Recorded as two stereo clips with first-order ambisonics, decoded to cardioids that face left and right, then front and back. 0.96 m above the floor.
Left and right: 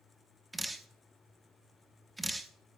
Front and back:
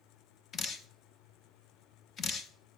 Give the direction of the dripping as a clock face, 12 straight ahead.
12 o'clock.